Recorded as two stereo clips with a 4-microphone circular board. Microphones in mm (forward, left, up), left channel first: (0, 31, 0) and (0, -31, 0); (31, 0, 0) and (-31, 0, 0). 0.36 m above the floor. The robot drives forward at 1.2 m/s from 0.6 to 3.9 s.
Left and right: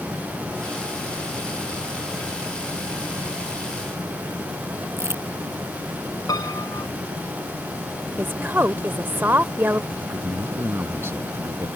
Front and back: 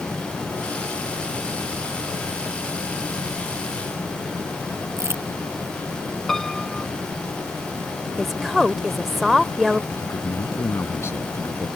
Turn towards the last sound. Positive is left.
turn(degrees=-45)